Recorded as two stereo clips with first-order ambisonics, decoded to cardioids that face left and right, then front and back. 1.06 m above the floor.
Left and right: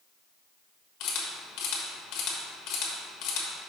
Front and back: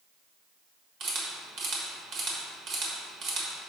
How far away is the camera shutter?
About 1.3 m.